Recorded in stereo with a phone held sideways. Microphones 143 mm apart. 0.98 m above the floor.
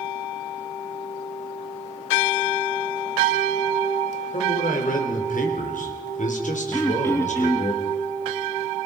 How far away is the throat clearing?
About 1.8 m.